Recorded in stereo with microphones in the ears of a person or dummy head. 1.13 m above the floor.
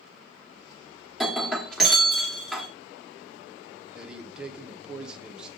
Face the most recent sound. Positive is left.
turn(degrees=-5)  # may be behind; listen again after turning